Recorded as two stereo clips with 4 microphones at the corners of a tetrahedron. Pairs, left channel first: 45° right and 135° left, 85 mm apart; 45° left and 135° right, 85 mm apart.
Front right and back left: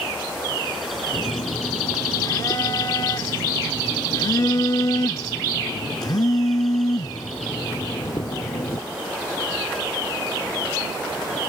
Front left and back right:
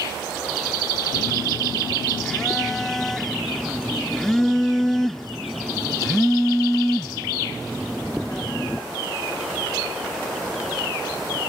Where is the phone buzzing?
35° right.